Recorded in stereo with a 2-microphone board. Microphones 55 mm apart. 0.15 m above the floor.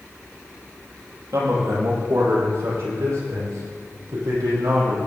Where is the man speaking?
70° right (ahead or behind), 6 m; by 5.0 s 65° right (ahead or behind), 7 m.